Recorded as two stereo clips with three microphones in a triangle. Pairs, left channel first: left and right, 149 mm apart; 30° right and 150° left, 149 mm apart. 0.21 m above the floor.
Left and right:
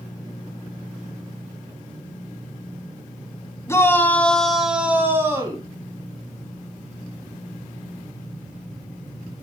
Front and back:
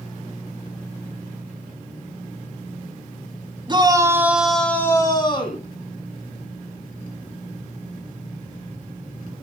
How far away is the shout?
About 1.2 m.